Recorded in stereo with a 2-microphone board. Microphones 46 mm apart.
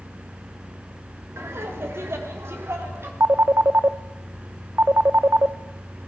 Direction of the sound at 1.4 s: 75° right (ahead or behind).